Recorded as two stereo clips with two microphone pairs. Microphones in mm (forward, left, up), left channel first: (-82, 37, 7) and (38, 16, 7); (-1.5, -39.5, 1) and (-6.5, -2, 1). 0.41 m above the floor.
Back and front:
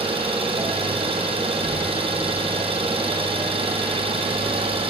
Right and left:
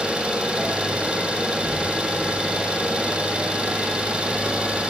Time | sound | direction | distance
0.0 | an engine running | 35° left | 4 m